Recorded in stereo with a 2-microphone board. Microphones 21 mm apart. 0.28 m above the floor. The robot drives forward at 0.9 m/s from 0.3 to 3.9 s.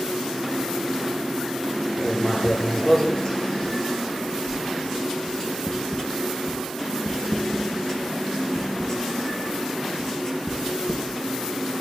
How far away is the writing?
About 5.5 m.